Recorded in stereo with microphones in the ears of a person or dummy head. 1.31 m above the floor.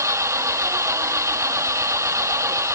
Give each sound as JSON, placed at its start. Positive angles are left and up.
{"t": 0.0, "sound": "an engine running", "side_deg": -25}